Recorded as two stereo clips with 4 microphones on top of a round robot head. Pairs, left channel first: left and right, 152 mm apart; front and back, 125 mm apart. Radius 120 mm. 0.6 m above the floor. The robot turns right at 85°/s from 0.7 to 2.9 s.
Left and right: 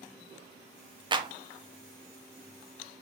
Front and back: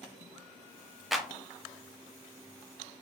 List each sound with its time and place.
1.1 s a clap: 95° right, 0.7 m; by 1.3 s 80° right, 0.7 m